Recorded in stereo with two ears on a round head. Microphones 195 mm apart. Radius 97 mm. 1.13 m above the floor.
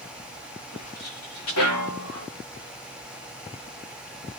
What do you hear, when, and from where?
0.7 s footsteps: 80° left, 6.5 m